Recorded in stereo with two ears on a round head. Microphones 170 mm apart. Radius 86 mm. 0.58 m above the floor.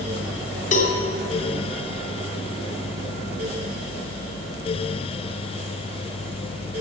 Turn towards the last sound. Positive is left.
turn(degrees=45)  # may be behind; listen again after turning